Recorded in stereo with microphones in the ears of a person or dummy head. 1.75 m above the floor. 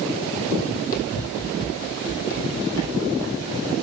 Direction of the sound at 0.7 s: 35° left (ahead or behind).